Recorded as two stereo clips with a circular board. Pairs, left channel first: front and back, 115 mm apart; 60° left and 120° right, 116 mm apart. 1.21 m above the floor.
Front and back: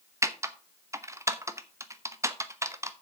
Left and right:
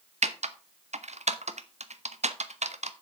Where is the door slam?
I don't hear a door slam.